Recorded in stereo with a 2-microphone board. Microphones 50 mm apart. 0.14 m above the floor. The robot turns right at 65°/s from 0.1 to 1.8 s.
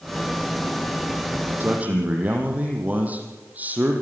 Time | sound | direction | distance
1.6 | a man speaking | 45° right (ahead or behind) | 5 m